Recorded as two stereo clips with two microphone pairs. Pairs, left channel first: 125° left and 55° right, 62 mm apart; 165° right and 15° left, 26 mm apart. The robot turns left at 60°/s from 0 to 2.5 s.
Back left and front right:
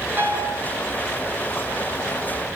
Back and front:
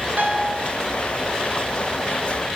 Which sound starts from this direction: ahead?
A piano, at 0.2 s.